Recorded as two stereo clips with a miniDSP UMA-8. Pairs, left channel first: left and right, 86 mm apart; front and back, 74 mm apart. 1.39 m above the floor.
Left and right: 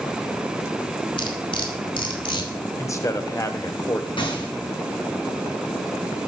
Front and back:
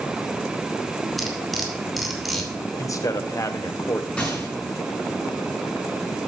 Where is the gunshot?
75° left, 5.5 m.